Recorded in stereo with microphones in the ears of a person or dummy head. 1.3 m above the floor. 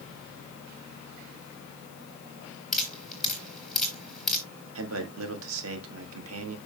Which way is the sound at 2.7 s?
Centre (ahead or behind).